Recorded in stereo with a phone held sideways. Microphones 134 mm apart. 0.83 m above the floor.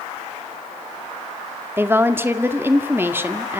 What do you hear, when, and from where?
1.8 s a woman speaking: 15° right (ahead or behind), 1.9 m